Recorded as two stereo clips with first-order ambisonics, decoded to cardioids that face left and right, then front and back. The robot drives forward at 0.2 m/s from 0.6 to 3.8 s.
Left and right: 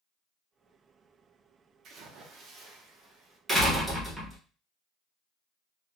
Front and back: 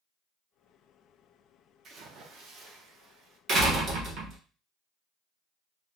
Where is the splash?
130° right, 0.5 m; by 3.4 s 150° right, 0.7 m.